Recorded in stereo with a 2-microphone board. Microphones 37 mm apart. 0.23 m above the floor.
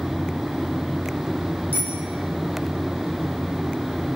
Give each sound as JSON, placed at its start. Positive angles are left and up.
{"t": 1.7, "sound": "a bicycle bell", "side_deg": -70, "distance_m": 6.5}